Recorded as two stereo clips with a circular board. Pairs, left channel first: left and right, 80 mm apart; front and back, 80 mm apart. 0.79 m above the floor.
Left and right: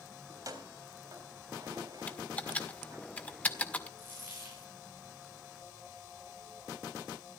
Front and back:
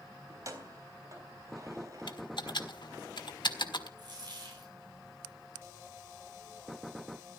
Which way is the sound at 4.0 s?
150° right.